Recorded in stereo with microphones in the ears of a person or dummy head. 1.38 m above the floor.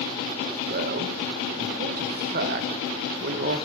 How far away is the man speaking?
About 0.9 m.